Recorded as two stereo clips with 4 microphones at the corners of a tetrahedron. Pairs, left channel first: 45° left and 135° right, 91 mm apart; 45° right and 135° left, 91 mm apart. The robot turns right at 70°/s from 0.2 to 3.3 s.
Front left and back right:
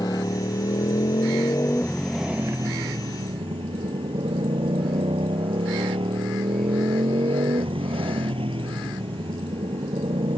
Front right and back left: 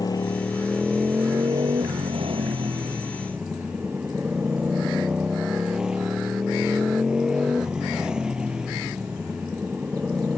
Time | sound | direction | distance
0.0 | a motorcycle | straight ahead | ?